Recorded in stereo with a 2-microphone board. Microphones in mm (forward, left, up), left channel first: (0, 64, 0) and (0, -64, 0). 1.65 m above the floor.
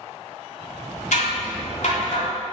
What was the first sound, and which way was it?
Scissors, 75° left (ahead or behind).